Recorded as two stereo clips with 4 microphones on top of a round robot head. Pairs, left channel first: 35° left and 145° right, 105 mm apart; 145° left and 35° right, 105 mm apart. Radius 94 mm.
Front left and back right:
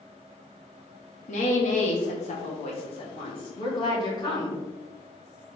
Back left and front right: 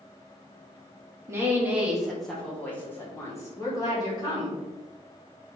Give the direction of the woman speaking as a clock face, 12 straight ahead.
11 o'clock.